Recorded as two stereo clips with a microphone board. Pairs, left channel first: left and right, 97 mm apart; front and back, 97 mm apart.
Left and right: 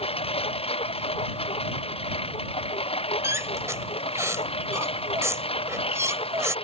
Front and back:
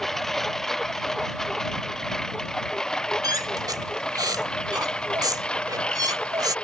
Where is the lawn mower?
90° left; by 6.7 s 80° left.